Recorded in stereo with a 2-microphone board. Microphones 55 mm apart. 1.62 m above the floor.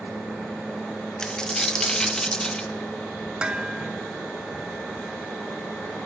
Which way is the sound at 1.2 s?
15° left (ahead or behind).